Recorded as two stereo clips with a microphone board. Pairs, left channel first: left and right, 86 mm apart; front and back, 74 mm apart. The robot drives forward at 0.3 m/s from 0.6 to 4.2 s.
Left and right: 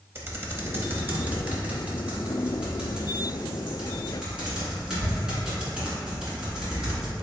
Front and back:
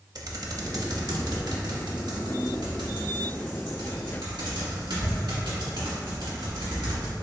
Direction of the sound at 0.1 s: 150° right.